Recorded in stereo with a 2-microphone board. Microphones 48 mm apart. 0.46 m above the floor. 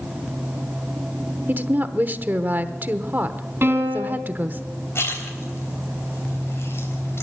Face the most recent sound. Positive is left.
turn(degrees=60)  # may be behind; listen again after turning